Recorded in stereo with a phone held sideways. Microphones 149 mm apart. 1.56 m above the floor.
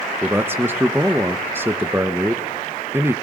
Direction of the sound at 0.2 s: 15° right (ahead or behind).